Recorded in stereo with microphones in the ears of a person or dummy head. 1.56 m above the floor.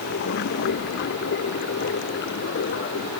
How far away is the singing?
No singing in this recording.